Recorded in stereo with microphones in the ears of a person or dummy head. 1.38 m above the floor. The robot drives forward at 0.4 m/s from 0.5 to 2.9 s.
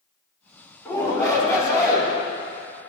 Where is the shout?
20° left (ahead or behind), 4 m.